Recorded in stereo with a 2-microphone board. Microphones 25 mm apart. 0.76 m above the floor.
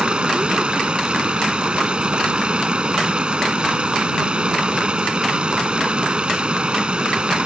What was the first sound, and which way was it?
Running water, 45° right (ahead or behind).